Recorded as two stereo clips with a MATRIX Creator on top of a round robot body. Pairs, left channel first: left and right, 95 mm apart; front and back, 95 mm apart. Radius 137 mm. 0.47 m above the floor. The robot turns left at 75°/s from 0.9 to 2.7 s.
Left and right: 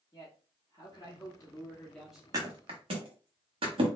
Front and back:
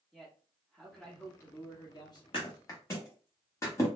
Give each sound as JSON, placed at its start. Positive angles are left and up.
{"t": 0.1, "sound": "a man speaking", "azimuth_deg": 90, "distance_m": 1.4}
{"t": 2.3, "sound": "a thud", "azimuth_deg": -35, "distance_m": 1.0}